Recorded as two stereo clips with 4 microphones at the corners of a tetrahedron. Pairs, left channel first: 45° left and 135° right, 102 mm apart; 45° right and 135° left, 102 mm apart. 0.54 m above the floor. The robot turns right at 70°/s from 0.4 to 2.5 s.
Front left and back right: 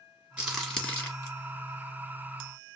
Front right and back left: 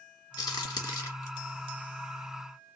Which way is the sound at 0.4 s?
60° right.